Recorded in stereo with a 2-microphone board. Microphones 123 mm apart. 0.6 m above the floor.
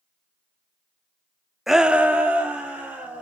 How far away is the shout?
About 0.6 m.